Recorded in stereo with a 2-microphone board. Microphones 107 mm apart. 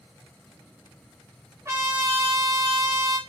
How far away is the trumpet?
About 1.5 m.